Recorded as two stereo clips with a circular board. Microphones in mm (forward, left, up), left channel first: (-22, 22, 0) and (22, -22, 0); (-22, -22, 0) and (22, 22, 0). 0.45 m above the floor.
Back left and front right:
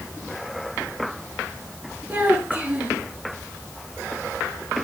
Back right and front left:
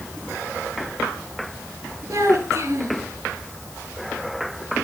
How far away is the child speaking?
About 4.5 m.